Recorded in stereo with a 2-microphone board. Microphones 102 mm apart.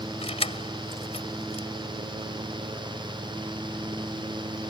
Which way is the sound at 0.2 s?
80° left.